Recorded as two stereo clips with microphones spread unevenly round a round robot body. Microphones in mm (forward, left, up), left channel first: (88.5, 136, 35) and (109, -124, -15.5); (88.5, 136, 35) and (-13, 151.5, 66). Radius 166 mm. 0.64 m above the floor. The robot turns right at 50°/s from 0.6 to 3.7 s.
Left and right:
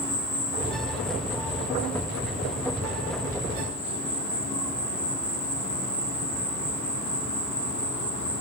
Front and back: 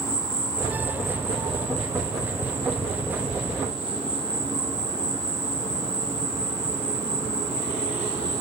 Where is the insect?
40° left, 6 m; by 8.4 s 165° right, 6 m.